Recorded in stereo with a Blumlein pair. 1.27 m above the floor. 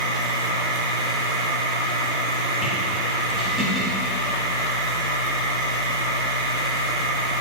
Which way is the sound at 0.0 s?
10° right.